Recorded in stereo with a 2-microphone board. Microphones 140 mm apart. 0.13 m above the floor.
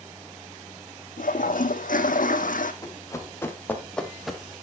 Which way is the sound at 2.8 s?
25° left (ahead or behind).